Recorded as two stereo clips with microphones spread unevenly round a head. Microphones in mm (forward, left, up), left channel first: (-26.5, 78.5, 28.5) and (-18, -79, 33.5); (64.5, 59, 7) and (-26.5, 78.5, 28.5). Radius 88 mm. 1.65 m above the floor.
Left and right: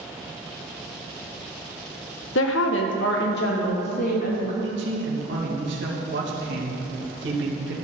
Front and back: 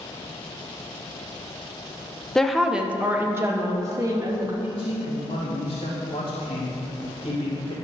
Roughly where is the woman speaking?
Left.